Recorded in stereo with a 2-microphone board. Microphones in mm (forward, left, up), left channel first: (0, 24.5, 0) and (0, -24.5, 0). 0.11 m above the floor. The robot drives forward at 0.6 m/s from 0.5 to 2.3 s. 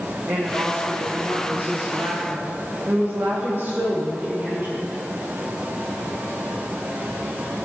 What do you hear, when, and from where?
0.3 s a woman speaking: 35° right (ahead or behind), 4.5 m; by 5.0 s 45° right (ahead or behind), 3.5 m